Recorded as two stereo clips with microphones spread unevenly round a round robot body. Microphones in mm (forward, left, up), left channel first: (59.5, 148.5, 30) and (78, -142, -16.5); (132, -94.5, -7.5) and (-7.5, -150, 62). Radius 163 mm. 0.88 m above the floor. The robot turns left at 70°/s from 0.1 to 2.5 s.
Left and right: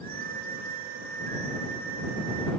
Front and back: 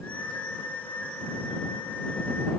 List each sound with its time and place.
Only background noise.